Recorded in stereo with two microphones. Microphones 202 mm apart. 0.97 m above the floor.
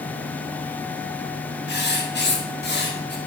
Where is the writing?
55° left (ahead or behind), 1.2 m.